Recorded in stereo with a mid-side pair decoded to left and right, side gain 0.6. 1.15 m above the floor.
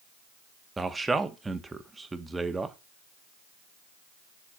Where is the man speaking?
15° right, 1.5 m.